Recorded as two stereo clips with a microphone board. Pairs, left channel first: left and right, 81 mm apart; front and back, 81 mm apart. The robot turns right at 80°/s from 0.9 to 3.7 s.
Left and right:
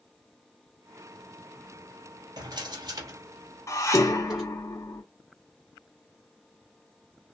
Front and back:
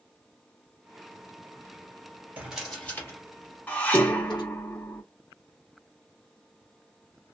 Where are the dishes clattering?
65° left, 0.7 m.